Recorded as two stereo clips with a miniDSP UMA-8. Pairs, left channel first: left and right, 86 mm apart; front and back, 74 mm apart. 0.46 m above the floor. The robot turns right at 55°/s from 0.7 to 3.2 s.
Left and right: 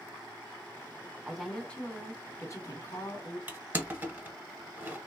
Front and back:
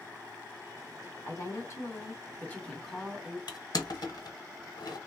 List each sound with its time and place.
1.2 s a woman speaking: 10° right, 1.4 m; by 3.4 s 100° left, 1.4 m
3.5 s crushing: 20° right, 1.0 m